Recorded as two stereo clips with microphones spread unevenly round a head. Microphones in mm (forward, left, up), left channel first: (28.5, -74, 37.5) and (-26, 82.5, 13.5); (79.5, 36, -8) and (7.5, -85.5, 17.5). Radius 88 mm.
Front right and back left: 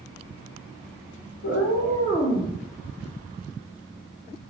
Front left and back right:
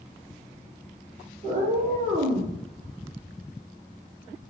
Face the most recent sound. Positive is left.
turn(degrees=-140)